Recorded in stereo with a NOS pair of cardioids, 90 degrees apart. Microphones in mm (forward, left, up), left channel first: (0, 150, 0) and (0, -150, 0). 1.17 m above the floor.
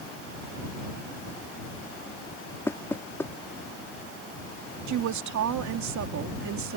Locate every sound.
2.7 s knocking: 10° left
4.9 s a woman speaking: 70° right